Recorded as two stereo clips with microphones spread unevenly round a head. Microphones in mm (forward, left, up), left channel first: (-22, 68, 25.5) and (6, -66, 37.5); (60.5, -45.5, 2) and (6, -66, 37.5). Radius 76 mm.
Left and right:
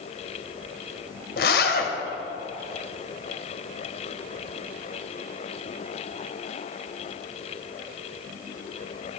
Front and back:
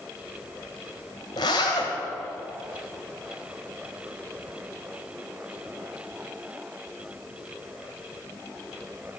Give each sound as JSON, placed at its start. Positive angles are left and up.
{"t": 1.4, "sound": "a zipper", "azimuth_deg": 75, "distance_m": 1.7}